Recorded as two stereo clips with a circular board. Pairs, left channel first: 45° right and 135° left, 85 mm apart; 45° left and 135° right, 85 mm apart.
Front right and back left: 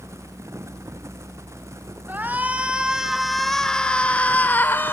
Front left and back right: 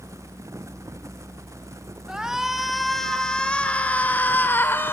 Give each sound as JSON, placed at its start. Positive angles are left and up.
{"t": 2.1, "sound": "a shout", "azimuth_deg": 155, "distance_m": 1.5}